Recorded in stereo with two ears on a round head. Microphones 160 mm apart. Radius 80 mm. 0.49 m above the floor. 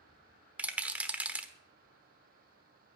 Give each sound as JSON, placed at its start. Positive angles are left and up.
{"t": 0.6, "sound": "a rattle", "side_deg": -10, "distance_m": 1.0}